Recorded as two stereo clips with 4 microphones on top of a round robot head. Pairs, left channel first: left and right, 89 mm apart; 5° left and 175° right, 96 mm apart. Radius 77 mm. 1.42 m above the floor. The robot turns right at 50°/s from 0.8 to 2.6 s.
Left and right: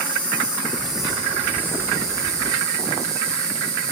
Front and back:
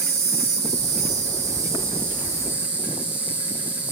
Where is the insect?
175° left, 4 m; by 3.9 s 95° right, 4 m.